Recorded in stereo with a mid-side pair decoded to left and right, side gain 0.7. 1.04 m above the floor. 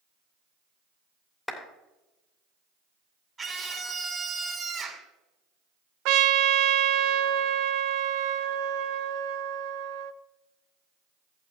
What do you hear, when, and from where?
1.5 s a clap: 10° left, 2.5 m
3.4 s a scream: 25° right, 4 m
6.0 s a trumpet: 65° right, 0.8 m